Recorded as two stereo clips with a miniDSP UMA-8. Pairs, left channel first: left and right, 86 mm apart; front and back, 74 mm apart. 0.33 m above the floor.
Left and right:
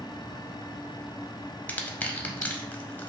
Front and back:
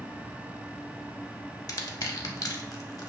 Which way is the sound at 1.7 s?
20° left.